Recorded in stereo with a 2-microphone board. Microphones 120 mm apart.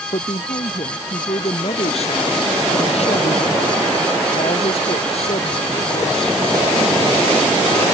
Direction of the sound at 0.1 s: 55° left (ahead or behind).